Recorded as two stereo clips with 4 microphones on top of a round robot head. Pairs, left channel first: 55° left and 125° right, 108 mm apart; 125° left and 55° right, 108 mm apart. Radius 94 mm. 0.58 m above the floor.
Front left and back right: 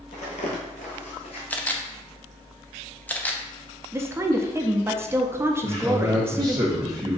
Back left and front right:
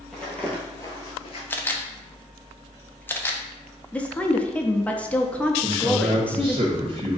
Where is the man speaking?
75° right, 1.4 m.